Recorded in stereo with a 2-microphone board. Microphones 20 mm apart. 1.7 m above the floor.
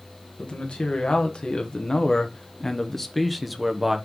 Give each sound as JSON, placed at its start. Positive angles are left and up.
{"t": 0.4, "sound": "a man speaking", "side_deg": 65, "distance_m": 2.0}